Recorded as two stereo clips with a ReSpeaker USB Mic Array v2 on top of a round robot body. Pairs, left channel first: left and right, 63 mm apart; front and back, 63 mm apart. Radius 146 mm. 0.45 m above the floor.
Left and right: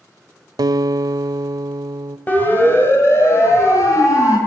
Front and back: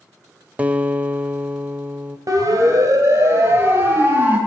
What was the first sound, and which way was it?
A guitar, 110° right.